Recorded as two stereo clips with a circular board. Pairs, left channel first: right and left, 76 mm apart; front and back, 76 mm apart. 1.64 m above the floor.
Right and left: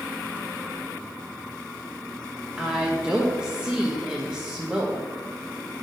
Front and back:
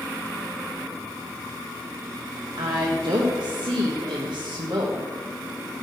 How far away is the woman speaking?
About 1.2 m.